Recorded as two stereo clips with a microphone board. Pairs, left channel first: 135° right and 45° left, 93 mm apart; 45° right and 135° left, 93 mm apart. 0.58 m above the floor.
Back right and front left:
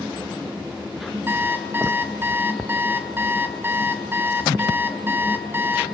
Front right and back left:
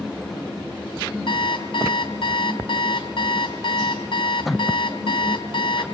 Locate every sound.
1.3 s an alarm clock: 20° right, 2.5 m